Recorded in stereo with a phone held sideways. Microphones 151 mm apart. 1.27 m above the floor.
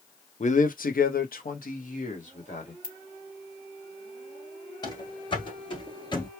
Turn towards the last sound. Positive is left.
turn(degrees=30)  # may be behind; listen again after turning